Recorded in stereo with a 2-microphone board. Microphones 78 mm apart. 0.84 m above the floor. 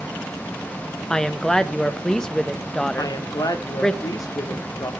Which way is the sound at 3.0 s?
50° left (ahead or behind).